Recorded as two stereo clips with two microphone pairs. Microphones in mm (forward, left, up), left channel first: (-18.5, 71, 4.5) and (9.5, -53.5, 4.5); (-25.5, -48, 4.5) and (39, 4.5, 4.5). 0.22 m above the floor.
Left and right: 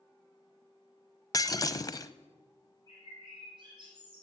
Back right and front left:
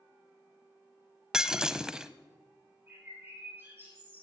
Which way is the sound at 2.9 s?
25° right.